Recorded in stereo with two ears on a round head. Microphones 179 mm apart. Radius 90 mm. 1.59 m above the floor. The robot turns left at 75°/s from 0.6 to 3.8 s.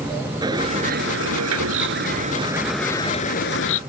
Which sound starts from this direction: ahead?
A bird, at 0.4 s.